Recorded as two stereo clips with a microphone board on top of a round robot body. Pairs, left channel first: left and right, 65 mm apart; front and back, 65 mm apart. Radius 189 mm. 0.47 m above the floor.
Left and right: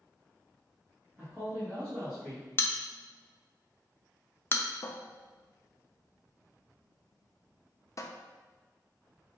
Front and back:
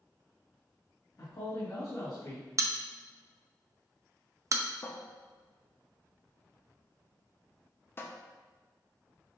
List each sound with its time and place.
1.2 s a man speaking: 30° right, 2 m; by 2.5 s 5° right, 2.5 m
2.6 s a bell: 140° left, 0.6 m
4.8 s a cupboard door: 55° left, 0.7 m